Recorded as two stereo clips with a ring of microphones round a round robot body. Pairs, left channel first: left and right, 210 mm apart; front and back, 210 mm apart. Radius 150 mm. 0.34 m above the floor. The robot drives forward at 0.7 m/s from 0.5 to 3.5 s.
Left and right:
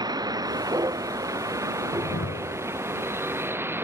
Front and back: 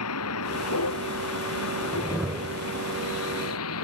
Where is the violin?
No violin in this recording.